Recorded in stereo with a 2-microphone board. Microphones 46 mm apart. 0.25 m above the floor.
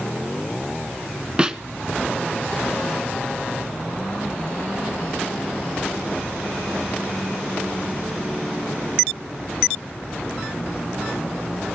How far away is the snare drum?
About 0.8 m.